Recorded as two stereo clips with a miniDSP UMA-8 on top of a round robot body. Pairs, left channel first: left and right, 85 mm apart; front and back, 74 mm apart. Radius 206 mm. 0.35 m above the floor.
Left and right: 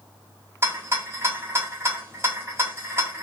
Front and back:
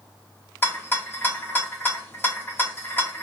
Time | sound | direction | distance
0.6 | a rattle | 50° right | 1.5 m